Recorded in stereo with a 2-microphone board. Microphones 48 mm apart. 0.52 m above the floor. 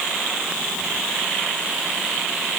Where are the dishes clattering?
I don't hear dishes clattering.